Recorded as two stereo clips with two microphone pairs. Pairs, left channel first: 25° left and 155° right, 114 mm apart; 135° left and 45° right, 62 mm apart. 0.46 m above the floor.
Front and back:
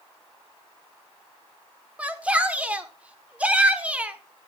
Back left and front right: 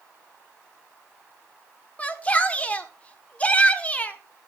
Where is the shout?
140° left, 1.4 m.